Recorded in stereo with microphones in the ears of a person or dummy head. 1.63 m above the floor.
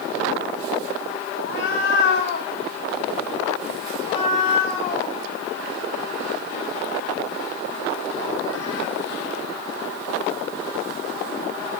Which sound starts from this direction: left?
A cat meowing, at 1.4 s.